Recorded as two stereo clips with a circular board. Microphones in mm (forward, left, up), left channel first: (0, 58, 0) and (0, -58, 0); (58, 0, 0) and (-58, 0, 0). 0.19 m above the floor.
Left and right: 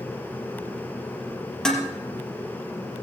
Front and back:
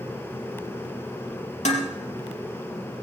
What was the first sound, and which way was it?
Dishes clattering, 5° left.